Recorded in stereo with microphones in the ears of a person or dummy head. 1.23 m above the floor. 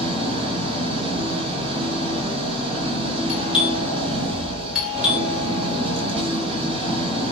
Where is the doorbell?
Centre (ahead or behind), 1.7 m.